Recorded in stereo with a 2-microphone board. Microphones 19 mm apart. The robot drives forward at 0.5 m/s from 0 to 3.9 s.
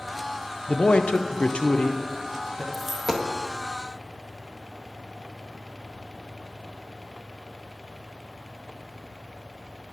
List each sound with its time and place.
0.7 s a man speaking: 65° left (ahead or behind), 0.5 m; by 2.6 s 30° left (ahead or behind), 0.9 m
2.7 s a dropped coin: 15° right (ahead or behind), 0.6 m